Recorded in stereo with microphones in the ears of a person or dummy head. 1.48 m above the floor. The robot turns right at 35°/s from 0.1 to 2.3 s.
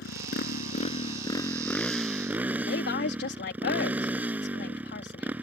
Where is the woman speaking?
65° left (ahead or behind).